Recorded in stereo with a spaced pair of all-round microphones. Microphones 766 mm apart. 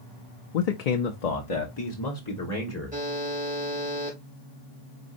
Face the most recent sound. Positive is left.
turn(degrees=-10)  # may be behind; listen again after turning